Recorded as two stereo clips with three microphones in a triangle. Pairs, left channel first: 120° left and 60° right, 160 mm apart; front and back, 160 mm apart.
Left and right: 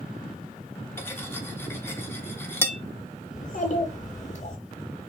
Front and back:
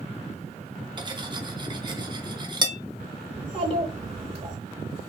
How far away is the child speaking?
About 0.6 m.